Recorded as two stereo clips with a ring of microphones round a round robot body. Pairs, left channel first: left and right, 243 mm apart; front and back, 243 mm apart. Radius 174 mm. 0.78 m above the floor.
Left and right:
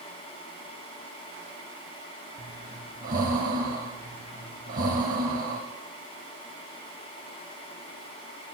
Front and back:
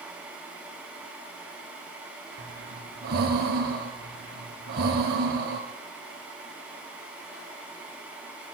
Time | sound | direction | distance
2.4 | breathing | 140° right | 0.6 m